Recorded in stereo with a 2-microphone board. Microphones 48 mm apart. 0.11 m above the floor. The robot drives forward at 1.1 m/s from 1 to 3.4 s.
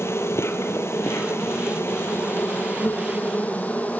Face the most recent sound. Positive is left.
turn(degrees=40)  # may be behind; listen again after turning